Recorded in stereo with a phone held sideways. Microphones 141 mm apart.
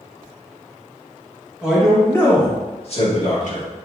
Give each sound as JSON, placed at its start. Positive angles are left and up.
{"t": 1.6, "sound": "a man speaking", "side_deg": -10, "distance_m": 1.3}